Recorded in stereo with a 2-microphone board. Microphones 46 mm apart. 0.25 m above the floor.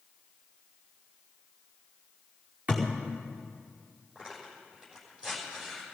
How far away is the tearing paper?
About 6 m.